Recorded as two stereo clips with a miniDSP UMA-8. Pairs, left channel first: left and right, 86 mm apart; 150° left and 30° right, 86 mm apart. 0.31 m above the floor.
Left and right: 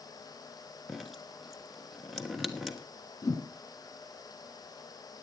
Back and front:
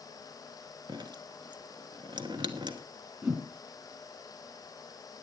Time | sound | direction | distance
0.9 | dripping | straight ahead | 1.2 m
3.2 | a whoosh | 40° left | 4 m